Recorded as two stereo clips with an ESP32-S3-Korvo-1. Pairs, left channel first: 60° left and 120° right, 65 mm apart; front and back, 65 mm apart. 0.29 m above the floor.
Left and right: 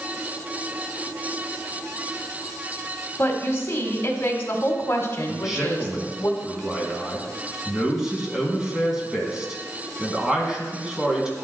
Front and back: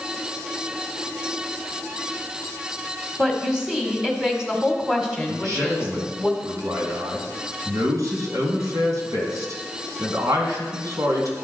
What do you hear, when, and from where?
3.2 s a woman speaking: 105° left, 1.6 m
5.3 s a man speaking: 160° left, 2.5 m